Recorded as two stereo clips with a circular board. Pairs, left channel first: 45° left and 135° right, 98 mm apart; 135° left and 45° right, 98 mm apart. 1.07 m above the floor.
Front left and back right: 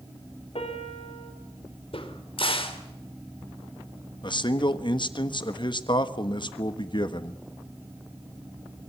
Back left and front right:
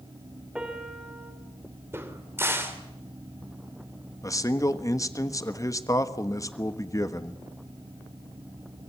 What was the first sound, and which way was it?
A piano, 35° left.